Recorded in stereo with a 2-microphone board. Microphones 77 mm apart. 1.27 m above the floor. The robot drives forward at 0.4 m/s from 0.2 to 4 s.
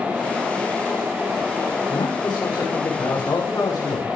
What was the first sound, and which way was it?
A man speaking, 65° left (ahead or behind).